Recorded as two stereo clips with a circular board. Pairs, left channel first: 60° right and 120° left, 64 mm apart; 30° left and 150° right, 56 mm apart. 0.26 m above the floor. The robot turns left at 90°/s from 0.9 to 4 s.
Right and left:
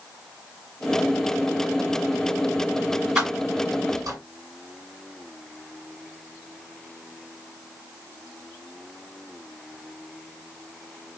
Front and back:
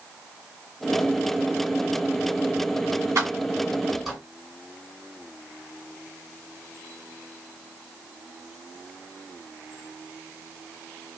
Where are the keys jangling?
160° right, 1.7 m; by 4.2 s 120° left, 1.7 m.